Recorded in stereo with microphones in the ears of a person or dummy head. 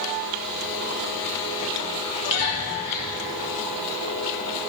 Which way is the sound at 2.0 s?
35° left (ahead or behind).